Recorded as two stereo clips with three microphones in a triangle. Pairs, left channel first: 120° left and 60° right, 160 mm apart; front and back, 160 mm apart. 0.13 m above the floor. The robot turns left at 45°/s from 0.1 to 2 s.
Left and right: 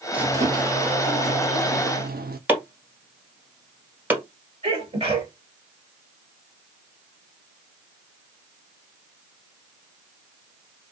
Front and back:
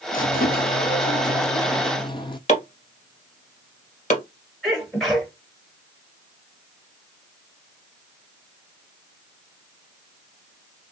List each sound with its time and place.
0.1 s a squeak: 25° left, 0.5 m; by 2.4 s 60° right, 0.5 m
2.5 s chopping: 15° left, 1.6 m
4.6 s a sneeze: 90° right, 1.7 m